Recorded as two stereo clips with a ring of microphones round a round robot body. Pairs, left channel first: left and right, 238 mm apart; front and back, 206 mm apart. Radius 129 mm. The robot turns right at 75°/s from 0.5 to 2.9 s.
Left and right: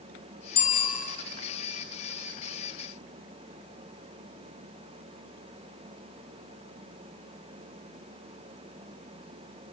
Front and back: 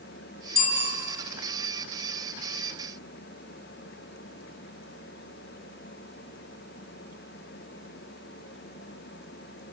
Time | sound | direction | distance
0.6 | a bicycle bell | 35° left | 3.5 m